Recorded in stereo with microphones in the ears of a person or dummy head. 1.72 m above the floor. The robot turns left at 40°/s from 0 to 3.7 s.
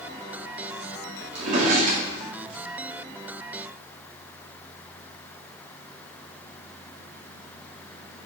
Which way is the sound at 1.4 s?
60° right (ahead or behind).